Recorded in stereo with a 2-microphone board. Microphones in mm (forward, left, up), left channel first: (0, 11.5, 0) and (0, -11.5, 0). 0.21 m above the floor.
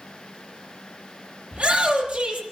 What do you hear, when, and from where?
1.5 s a shout: 75° right (ahead or behind), 7.5 m